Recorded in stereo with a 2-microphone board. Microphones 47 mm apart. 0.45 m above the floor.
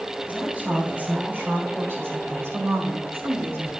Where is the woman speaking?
30° right (ahead or behind), 2.5 m; by 3.7 s 55° right (ahead or behind), 2.5 m.